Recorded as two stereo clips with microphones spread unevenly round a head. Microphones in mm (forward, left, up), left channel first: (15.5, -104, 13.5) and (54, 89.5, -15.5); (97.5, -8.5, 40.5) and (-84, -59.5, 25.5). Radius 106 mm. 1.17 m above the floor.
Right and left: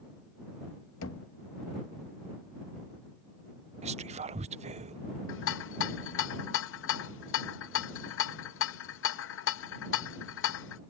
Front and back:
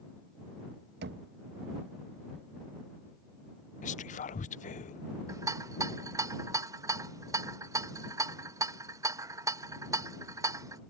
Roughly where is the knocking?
Behind right.